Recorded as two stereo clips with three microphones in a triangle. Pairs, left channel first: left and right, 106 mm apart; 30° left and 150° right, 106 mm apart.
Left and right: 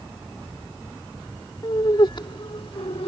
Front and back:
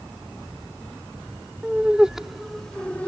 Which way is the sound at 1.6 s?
135° left.